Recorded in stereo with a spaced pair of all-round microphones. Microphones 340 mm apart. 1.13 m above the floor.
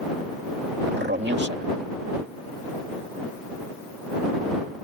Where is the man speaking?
30° right (ahead or behind).